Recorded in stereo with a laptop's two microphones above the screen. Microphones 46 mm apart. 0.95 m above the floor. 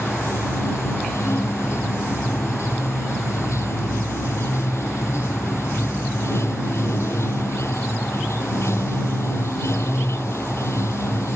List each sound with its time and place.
0.0 s running water: 75° left (ahead or behind)